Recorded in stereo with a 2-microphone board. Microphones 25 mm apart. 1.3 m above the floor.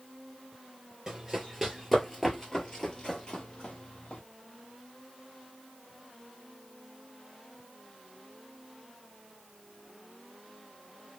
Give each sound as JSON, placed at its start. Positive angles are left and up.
{"t": 1.1, "sound": "running footsteps", "side_deg": -15, "distance_m": 1.3}